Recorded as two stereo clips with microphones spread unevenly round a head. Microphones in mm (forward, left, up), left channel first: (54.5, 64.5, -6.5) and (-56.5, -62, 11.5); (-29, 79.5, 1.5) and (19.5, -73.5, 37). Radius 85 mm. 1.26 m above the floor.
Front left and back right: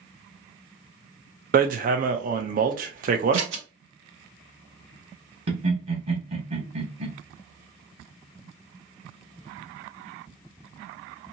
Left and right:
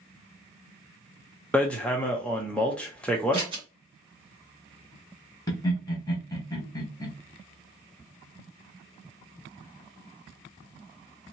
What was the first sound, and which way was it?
Hammering, 165° right.